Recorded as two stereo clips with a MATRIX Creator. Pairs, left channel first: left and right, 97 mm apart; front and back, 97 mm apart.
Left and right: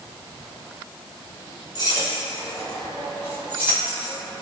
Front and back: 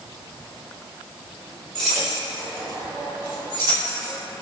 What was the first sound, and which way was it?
Keys jangling, 80° left.